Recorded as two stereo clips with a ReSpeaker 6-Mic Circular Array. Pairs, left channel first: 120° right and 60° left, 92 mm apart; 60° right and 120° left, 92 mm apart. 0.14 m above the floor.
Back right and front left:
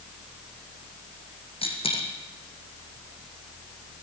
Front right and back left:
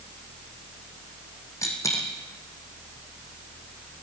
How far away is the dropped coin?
About 3.5 m.